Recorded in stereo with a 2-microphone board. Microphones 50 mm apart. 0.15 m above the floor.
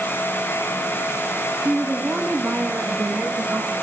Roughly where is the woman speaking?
Centre.